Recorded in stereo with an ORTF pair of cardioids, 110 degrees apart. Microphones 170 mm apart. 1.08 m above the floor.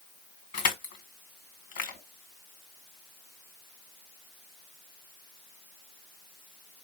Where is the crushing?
65° left, 2 m.